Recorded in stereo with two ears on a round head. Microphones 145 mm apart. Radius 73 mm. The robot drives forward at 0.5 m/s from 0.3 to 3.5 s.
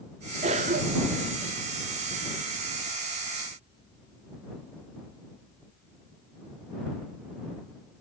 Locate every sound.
0.4 s a cough: 40° right (ahead or behind), 1.2 m; by 1.3 s 60° right (ahead or behind), 0.9 m